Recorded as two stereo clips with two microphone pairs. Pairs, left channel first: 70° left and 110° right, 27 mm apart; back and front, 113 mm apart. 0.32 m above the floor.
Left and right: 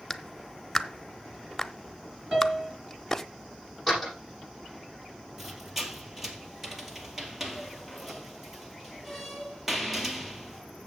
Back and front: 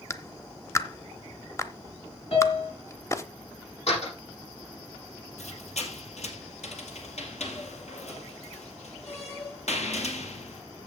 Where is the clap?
140° left, 0.8 m.